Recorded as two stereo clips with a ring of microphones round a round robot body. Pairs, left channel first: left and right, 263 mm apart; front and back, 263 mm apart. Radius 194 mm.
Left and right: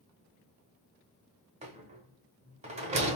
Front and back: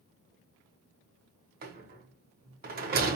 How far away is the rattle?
About 0.9 m.